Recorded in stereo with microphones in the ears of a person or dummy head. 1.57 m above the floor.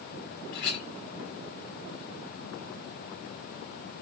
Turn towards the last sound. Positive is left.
turn(degrees=55)  # may be behind; listen again after turning